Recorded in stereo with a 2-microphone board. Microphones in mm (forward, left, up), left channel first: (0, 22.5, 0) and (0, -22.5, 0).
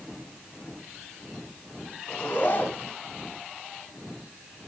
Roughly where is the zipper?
Left.